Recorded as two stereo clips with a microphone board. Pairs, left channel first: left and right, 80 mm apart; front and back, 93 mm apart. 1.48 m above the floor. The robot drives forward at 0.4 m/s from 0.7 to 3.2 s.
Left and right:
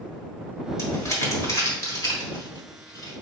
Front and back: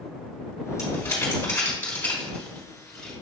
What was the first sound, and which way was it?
Crumpling, 50° left.